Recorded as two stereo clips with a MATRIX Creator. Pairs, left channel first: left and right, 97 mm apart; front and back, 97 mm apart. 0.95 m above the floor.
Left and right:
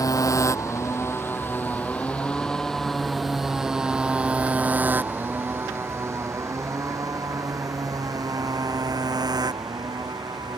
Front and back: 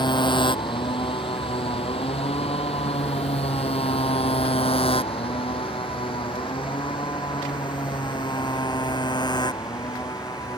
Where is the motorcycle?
40° left; by 10.6 s 45° right.